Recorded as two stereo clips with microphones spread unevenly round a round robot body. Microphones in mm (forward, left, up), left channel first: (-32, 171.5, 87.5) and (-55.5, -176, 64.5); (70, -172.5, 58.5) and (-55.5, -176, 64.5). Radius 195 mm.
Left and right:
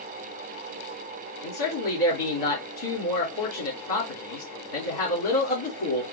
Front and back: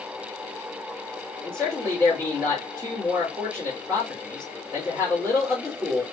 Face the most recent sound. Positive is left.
turn(degrees=85)